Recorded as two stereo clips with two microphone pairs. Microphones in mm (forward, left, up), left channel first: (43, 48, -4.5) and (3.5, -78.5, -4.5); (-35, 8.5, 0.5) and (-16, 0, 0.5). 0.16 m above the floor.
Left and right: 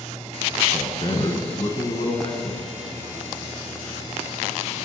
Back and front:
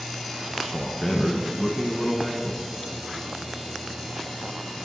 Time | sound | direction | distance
0.7 | a man speaking | 80° left | 1.3 m